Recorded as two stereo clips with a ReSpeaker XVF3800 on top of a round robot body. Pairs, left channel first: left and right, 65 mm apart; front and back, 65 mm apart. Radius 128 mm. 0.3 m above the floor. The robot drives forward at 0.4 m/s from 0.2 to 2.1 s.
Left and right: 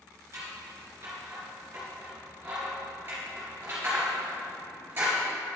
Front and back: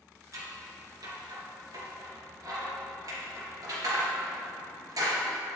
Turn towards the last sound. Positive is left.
turn(degrees=-150)